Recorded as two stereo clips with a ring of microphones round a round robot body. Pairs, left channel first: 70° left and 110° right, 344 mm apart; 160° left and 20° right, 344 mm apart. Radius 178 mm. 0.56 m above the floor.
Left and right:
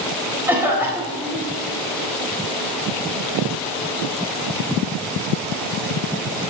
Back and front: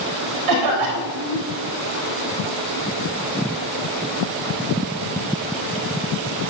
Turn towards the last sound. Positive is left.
turn(degrees=-30)